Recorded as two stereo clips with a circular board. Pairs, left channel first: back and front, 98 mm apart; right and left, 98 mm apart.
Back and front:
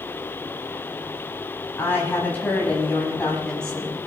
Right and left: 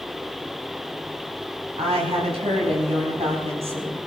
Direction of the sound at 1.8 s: 110° left.